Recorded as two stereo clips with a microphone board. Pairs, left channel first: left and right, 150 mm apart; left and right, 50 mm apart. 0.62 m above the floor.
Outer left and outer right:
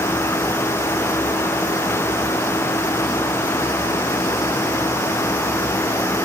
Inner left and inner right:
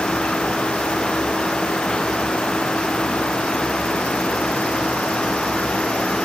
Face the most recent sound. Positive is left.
No sound to turn to.